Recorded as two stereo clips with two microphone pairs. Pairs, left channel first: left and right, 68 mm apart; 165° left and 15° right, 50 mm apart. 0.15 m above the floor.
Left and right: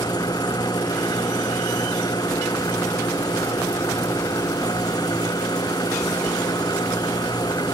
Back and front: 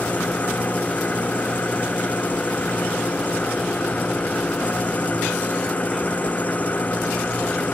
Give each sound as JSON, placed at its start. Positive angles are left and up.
{"t": 0.0, "sound": "an engine running", "azimuth_deg": 105}